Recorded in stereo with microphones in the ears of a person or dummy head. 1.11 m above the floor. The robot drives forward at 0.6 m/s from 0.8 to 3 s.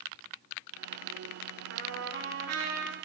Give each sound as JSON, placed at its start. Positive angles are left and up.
{"t": 1.7, "sound": "a trumpet", "side_deg": -65, "distance_m": 1.7}